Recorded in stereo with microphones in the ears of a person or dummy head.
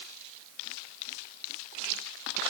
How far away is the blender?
I don't hear a blender.